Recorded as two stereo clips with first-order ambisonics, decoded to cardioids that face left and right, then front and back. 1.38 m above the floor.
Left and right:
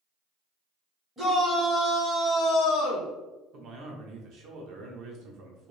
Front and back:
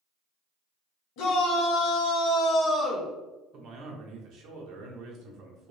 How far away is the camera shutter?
I don't hear a camera shutter.